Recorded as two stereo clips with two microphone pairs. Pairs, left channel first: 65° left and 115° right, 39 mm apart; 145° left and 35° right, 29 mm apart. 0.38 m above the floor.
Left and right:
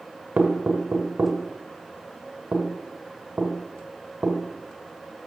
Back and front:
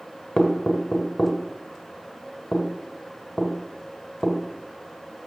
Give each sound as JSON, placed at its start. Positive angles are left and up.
{"t": 0.4, "sound": "knocking", "azimuth_deg": -145, "distance_m": 1.8}